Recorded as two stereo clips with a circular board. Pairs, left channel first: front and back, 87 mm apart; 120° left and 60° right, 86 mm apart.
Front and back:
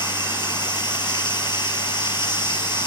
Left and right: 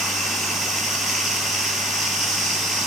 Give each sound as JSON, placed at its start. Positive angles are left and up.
{"t": 0.0, "sound": "running water", "azimuth_deg": 25, "distance_m": 4.0}